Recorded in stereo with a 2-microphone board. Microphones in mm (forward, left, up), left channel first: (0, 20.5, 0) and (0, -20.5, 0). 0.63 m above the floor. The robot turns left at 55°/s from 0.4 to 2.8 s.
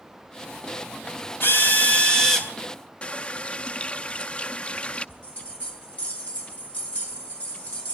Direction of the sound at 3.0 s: 25° left (ahead or behind).